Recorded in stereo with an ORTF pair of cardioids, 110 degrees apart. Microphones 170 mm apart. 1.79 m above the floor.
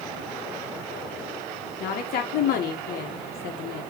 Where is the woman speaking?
65° left, 1.7 m.